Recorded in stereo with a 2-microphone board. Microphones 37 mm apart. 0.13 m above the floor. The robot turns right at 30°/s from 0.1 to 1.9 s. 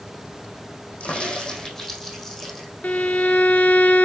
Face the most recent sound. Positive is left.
turn(degrees=40)  # may be behind; listen again after turning